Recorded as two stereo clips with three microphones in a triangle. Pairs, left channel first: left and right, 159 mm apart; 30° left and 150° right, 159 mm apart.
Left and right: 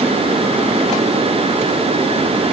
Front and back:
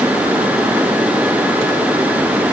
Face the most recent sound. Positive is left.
No sound to turn to.